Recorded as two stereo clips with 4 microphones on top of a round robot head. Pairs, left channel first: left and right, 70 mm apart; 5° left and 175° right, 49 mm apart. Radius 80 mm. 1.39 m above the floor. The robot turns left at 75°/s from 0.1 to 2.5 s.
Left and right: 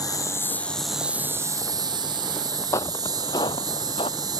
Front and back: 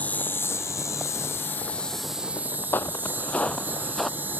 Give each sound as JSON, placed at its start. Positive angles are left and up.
{"t": 0.0, "sound": "an insect", "azimuth_deg": 60}
{"t": 2.7, "sound": "footsteps", "azimuth_deg": 45}